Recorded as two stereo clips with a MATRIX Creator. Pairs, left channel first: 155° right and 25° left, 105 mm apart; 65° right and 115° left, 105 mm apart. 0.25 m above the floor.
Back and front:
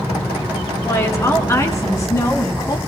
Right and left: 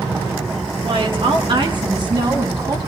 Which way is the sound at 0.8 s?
140° left.